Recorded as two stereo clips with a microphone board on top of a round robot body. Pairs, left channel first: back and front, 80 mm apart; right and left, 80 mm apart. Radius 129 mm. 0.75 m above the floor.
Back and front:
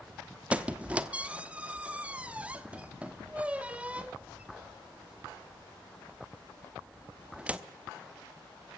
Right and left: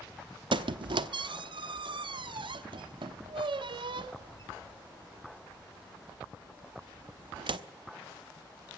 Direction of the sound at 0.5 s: 75° left.